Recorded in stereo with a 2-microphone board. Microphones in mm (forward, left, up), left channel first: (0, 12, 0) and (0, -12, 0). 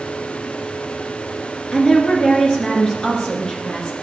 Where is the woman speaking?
35° left (ahead or behind), 2 m.